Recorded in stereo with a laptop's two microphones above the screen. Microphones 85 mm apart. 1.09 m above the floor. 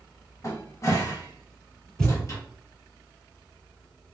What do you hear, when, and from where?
0.4 s a cupboard door: 35° left (ahead or behind), 0.8 m
2.0 s a thud: 5° left (ahead or behind), 2 m